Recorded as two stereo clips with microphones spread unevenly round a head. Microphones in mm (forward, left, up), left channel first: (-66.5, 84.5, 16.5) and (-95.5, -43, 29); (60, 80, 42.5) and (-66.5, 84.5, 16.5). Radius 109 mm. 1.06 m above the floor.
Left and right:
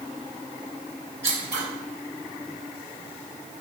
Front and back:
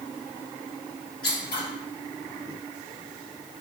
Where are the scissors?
40° right, 2 m.